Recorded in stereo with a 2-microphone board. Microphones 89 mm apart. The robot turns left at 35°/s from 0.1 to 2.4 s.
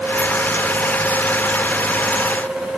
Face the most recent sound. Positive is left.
No sound to turn to.